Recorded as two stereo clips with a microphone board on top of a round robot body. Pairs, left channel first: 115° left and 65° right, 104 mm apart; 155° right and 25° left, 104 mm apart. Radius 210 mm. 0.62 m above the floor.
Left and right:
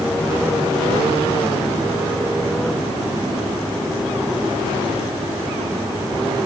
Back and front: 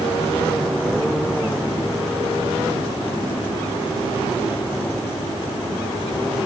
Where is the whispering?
I don't hear whispering.